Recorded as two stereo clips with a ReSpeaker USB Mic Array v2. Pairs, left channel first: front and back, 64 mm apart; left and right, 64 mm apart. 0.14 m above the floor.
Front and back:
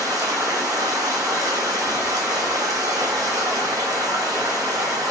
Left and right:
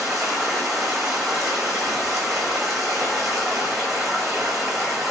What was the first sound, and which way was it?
Running water, straight behind.